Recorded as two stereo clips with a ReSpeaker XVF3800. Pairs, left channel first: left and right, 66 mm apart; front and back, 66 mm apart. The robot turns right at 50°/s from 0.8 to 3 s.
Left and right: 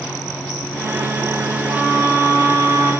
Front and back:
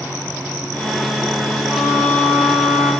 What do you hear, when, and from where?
1.7 s a violin: 170° right, 1.4 m; by 2.9 s 110° right, 1.4 m